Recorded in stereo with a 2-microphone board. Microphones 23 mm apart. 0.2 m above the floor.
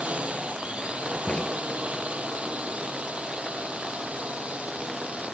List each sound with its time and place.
0.0 s a drone: 60° right (ahead or behind); by 5.3 s 65° right (ahead or behind)
1.3 s a crack: 55° left (ahead or behind)